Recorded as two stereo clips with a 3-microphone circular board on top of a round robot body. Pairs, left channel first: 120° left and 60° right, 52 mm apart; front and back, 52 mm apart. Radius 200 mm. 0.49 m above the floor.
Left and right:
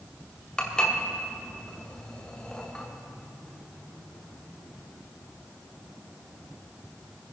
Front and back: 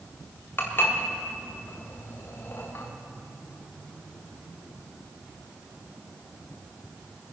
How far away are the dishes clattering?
About 1.8 m.